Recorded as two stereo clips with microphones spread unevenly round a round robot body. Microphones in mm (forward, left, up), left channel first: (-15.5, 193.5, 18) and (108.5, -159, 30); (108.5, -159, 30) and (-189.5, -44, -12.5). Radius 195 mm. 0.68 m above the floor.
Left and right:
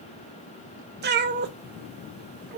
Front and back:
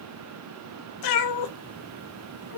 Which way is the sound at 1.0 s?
10° right.